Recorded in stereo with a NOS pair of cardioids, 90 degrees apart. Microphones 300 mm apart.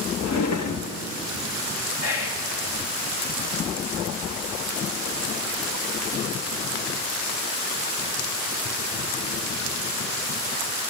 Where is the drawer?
65° left, 1.5 m.